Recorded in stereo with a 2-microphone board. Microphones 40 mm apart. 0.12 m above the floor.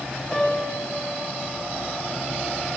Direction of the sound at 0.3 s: Centre (ahead or behind).